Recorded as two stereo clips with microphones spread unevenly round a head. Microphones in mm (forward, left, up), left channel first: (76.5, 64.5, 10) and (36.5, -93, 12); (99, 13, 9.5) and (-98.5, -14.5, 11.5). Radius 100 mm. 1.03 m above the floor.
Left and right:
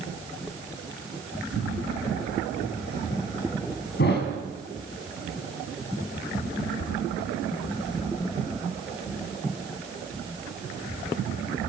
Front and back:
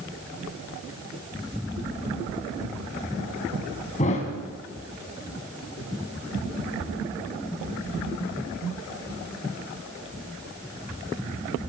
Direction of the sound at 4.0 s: 65° left.